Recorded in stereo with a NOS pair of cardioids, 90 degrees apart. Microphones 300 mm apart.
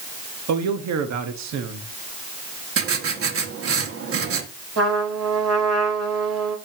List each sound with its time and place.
0.5 s a man speaking: 65° right, 1.5 m
2.8 s writing: 50° right, 1.8 m
4.8 s a trumpet: 55° right, 5 m